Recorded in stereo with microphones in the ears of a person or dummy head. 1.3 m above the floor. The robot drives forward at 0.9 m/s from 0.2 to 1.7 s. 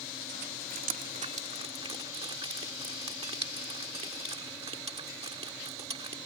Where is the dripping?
50° right (ahead or behind); by 6.2 s 40° right (ahead or behind).